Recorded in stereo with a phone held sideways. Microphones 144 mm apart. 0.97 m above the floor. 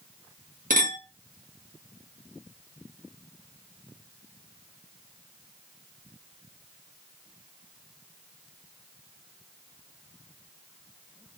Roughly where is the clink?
Right.